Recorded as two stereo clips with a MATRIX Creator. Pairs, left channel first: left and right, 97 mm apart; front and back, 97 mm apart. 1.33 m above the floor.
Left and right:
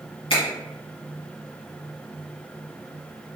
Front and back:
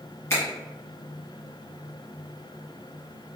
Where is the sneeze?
I don't hear a sneeze.